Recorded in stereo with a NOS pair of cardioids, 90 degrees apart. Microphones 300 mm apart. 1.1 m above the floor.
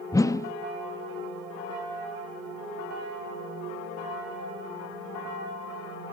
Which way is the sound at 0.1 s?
10° left.